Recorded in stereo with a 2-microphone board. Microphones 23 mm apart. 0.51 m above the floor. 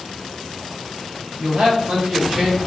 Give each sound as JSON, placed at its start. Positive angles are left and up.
{"t": 1.4, "sound": "a man speaking", "side_deg": -65, "distance_m": 1.9}